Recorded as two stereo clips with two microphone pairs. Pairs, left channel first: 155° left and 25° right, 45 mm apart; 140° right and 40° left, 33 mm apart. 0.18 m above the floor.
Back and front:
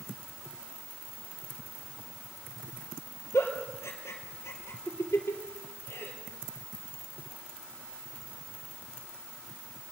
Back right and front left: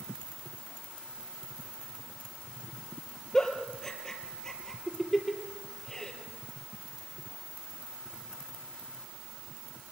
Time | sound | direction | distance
3.3 | a giggle | 150° left | 3 m